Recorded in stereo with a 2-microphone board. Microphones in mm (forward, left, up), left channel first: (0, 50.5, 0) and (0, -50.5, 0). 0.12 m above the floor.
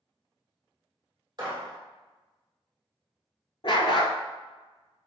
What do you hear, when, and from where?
1.4 s a gunshot: 45° right (ahead or behind), 1.6 m
3.6 s a dog barking: 60° left (ahead or behind), 0.5 m